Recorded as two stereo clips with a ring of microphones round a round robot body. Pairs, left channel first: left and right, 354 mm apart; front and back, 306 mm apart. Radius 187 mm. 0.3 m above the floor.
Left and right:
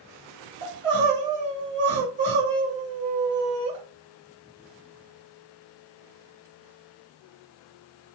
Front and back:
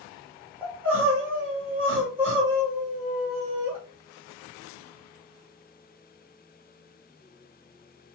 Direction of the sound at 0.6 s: 105° right.